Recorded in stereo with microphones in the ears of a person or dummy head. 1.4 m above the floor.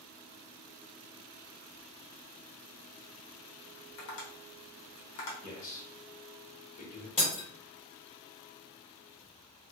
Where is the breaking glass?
35° left (ahead or behind), 1.2 m.